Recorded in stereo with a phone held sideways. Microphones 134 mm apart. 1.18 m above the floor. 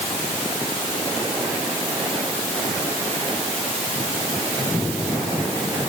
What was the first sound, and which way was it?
Only background noise.